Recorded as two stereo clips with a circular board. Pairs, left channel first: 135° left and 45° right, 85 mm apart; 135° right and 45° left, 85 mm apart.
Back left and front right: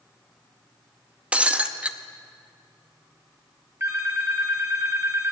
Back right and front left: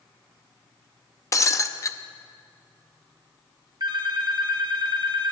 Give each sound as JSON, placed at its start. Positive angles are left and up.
{"t": 1.3, "sound": "breaking glass", "azimuth_deg": -115, "distance_m": 0.6}
{"t": 3.8, "sound": "a phone ringing", "azimuth_deg": 15, "distance_m": 1.5}